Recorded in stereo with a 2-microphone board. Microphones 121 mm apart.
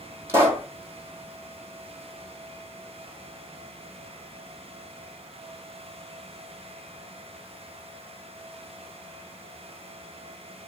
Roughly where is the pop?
Right.